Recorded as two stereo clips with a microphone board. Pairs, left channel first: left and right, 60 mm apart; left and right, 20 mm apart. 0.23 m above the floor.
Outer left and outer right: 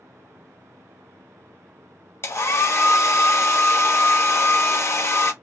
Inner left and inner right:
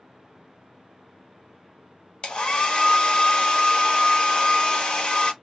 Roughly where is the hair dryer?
Left.